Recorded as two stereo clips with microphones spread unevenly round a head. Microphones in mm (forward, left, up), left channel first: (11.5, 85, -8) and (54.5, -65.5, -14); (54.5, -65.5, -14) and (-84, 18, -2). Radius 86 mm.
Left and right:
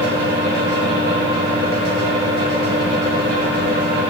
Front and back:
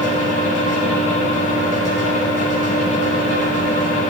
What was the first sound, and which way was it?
A fan, 70° right.